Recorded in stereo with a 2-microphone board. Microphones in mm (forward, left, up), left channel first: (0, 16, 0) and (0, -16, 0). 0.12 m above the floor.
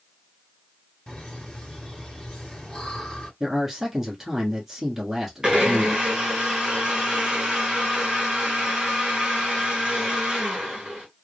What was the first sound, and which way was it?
Laughter, 15° left (ahead or behind).